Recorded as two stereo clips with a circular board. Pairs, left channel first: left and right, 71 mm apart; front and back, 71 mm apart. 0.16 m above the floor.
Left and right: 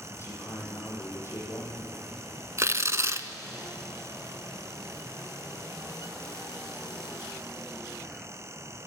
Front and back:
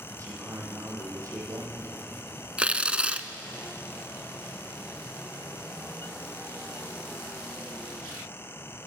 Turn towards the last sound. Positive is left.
turn(degrees=-115)